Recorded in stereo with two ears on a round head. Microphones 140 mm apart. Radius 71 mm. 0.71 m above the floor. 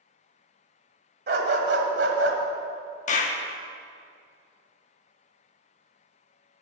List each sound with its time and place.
1.3 s a dog barking: 65° right (ahead or behind), 1.6 m; by 2.4 s 85° right, 1.6 m
3.1 s a clap: 45° left (ahead or behind), 1.0 m